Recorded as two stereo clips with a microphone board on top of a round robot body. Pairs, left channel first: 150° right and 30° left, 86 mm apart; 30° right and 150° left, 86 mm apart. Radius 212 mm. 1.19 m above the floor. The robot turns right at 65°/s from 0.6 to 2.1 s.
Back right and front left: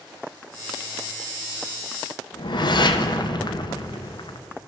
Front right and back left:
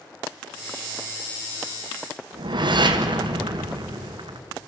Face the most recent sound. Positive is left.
turn(degrees=180)